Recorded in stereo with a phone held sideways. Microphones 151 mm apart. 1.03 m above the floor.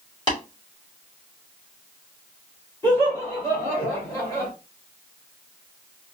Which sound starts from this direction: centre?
Laughter, at 2.8 s.